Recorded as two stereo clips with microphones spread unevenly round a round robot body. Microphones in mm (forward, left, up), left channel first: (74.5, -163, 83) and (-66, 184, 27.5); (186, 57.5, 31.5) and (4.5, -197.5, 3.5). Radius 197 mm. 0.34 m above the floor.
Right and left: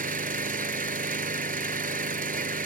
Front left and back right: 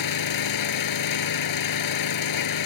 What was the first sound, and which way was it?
An engine running, 45° left.